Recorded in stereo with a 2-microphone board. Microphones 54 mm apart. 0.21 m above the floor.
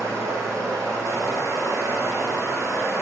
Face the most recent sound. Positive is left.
turn(degrees=-75)  # may be behind; listen again after turning